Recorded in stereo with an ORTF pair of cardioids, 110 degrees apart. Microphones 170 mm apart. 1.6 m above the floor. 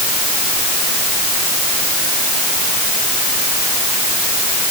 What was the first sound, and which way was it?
Only background noise.